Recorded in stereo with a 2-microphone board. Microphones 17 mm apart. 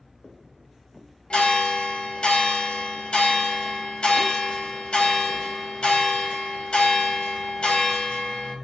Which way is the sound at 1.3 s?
80° left.